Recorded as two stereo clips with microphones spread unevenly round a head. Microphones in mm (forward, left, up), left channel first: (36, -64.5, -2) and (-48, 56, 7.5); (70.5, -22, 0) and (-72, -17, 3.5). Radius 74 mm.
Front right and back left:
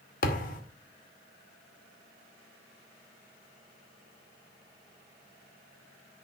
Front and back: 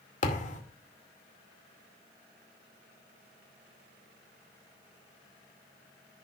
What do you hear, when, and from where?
0.2 s a thud: 30° right, 2.5 m